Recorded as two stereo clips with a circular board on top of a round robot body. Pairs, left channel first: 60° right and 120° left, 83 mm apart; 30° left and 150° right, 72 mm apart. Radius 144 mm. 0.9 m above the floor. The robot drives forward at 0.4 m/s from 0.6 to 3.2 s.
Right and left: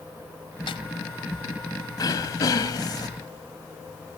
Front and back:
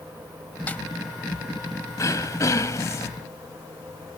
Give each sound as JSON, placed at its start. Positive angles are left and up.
{"t": 0.7, "sound": "a snare drum", "azimuth_deg": -40}
{"t": 2.0, "sound": "throat clearing", "azimuth_deg": -15}